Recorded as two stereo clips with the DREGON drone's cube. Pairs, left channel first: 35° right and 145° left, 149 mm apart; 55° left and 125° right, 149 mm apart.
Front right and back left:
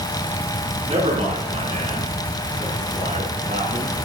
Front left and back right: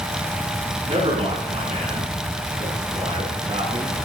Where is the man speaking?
165° right, 6 m; by 4.0 s 175° right, 7.5 m.